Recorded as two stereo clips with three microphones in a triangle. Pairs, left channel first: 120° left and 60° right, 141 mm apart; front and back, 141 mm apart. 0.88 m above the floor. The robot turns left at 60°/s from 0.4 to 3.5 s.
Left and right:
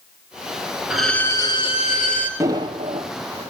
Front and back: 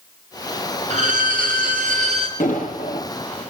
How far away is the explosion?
About 6.5 m.